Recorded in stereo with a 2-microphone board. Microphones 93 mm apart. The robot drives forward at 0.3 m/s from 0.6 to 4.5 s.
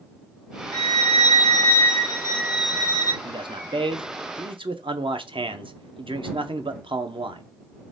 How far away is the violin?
About 1.1 m.